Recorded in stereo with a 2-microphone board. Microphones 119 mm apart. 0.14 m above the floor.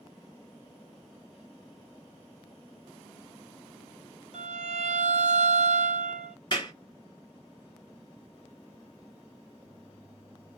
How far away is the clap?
About 1.9 m.